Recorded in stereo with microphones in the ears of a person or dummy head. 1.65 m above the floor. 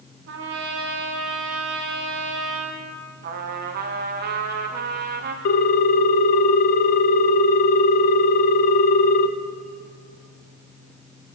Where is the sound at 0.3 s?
60° right (ahead or behind), 1.9 m.